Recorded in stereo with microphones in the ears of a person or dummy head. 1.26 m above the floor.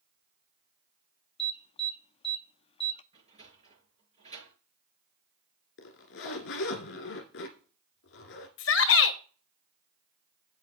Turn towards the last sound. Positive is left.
turn(degrees=60)  # may be behind; listen again after turning